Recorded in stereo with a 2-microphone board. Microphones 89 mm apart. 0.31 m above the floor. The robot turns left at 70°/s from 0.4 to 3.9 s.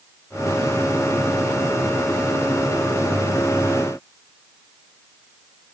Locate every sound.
Only background noise.